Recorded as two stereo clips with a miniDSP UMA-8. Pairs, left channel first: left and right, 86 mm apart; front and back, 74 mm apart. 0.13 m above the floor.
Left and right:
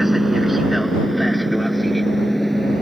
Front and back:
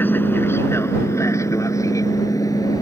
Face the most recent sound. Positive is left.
turn(degrees=5)